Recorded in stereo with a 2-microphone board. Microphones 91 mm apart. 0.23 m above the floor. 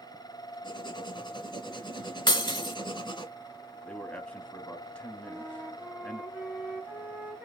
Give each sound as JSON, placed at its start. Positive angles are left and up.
{"t": 0.6, "sound": "writing", "side_deg": 55, "distance_m": 1.7}
{"t": 2.3, "sound": "breaking glass", "side_deg": 60, "distance_m": 0.7}
{"t": 3.8, "sound": "a man speaking", "side_deg": 10, "distance_m": 1.3}
{"t": 5.2, "sound": "a flute", "side_deg": -20, "distance_m": 1.4}